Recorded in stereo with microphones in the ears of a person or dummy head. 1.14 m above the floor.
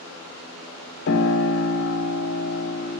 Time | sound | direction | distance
1.1 | a piano | 60° left (ahead or behind) | 0.8 m